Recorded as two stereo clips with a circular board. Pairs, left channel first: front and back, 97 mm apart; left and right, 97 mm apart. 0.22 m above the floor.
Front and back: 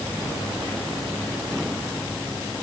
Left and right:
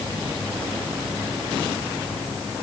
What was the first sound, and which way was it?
Only background noise.